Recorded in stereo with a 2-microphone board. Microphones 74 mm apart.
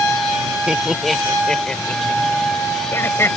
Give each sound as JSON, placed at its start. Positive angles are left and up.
{"t": 0.7, "sound": "laughter", "side_deg": -10}